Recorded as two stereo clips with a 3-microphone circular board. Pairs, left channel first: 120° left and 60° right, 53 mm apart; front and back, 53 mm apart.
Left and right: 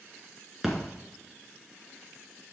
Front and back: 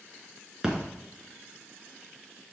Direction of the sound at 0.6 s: 135° right.